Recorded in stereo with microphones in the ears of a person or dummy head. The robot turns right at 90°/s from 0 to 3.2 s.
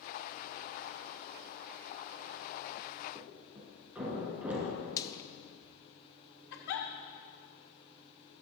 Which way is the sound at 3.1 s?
15° right (ahead or behind).